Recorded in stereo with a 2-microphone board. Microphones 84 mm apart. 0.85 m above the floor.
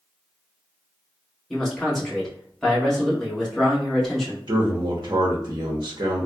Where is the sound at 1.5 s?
5° left (ahead or behind), 1.3 m.